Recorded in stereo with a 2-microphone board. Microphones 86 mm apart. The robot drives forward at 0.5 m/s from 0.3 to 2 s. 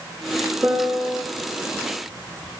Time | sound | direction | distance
0.6 | a piano | 15° right (ahead or behind) | 3 m